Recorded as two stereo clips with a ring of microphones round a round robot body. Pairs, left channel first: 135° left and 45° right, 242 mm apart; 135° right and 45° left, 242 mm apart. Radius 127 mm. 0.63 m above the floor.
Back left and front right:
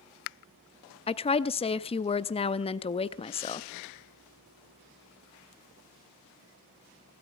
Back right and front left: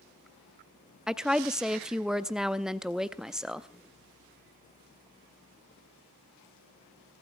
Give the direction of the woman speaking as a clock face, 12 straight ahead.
8 o'clock.